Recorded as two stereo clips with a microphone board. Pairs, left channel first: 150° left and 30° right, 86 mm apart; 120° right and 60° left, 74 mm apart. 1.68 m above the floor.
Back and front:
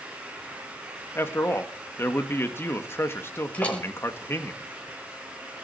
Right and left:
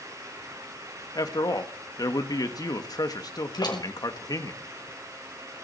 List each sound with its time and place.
1.1 s a man speaking: 150° right, 2 m
3.5 s a door slam: 135° right, 5 m